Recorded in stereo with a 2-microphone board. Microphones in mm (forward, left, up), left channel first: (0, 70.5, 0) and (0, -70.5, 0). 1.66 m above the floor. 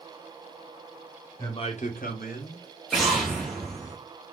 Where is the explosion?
Centre (ahead or behind), 1.1 m.